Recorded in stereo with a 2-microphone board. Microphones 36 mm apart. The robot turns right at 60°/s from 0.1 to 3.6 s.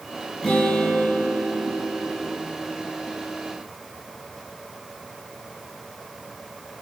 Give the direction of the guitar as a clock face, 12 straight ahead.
6 o'clock.